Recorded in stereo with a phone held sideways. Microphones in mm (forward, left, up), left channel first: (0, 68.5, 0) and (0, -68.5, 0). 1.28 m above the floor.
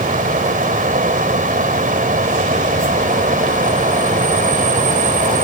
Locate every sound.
0.0 s a fan: 85° right